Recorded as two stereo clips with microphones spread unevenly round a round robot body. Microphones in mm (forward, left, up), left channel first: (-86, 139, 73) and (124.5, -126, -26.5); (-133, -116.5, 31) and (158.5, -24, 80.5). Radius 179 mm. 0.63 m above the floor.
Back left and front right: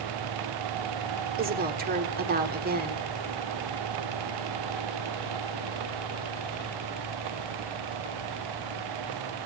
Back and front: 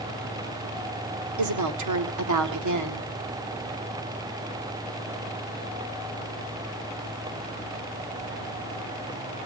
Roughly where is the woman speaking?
Ahead.